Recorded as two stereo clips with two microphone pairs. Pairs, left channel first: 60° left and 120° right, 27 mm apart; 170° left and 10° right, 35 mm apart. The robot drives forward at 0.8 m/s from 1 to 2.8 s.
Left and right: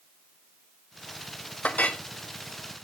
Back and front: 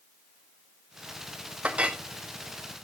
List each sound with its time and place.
1.6 s a clink: 45° left, 1.2 m; by 2.0 s 55° left, 1.0 m